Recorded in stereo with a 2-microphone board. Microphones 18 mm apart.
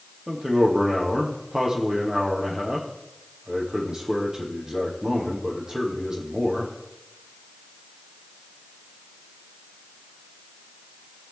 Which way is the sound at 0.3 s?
35° right (ahead or behind).